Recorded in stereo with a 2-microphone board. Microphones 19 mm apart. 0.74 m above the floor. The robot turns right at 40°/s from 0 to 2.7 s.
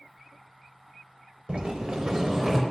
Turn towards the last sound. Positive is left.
turn(degrees=-25)